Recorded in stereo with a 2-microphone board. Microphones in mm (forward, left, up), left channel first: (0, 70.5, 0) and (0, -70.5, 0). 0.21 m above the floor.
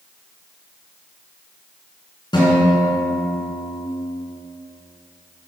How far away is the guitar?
About 2.5 m.